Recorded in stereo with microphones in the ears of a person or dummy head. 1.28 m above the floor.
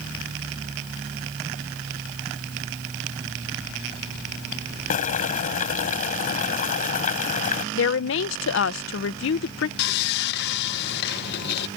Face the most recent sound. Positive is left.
turn(degrees=60)  # may be behind; listen again after turning